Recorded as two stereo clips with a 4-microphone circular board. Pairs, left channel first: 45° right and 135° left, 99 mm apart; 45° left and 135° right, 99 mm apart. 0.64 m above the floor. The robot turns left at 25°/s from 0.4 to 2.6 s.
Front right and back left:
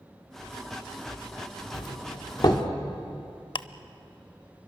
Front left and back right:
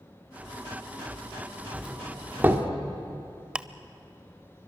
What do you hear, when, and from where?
1.7 s a doorbell: 55° right, 1.9 m; by 2.7 s 75° right, 1.9 m
3.5 s ticking: 55° right, 0.6 m